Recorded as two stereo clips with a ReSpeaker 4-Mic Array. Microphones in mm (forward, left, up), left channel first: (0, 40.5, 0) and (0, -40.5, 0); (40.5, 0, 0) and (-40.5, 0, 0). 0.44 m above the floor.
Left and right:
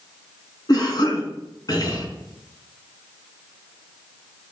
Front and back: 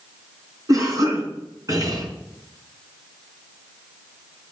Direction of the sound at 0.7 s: 130° left.